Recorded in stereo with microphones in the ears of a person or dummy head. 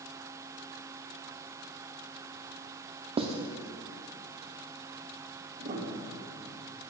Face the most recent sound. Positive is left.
turn(degrees=-30)  # may be behind; listen again after turning